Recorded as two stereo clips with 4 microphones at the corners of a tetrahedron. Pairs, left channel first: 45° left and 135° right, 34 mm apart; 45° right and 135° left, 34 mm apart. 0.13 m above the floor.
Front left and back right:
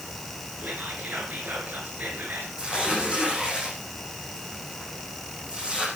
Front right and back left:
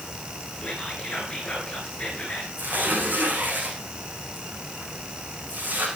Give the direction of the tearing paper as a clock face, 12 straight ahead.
7 o'clock.